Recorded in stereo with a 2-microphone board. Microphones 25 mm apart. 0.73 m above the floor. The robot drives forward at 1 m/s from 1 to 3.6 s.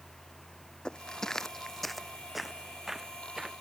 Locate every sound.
0.8 s footsteps: 40° left (ahead or behind); by 3.5 s 15° right (ahead or behind)